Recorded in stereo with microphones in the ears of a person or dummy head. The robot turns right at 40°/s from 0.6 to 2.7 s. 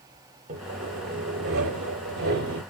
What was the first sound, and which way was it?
Sawing, 135° right.